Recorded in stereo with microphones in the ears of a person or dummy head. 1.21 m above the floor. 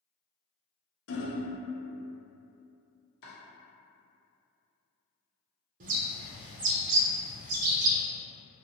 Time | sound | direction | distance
1.1 | hammering | 70° left (ahead or behind) | 0.6 m
3.2 | chopping | 55° left (ahead or behind) | 0.9 m
5.8 | a bird | 45° right (ahead or behind) | 0.5 m